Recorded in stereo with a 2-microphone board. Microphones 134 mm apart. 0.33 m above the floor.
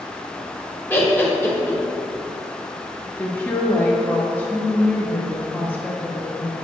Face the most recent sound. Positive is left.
turn(degrees=15)  # may be behind; listen again after turning